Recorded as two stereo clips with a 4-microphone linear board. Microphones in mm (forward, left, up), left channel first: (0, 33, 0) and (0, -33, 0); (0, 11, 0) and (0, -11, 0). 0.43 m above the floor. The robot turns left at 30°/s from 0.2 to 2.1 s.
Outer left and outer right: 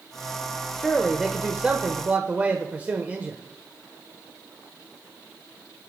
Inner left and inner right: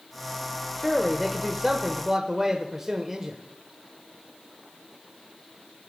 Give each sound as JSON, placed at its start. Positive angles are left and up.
{"t": 0.8, "sound": "a man speaking", "azimuth_deg": 10, "distance_m": 1.1}